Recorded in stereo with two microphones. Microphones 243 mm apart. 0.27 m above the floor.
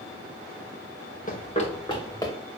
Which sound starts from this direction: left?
Running footsteps, at 1.3 s.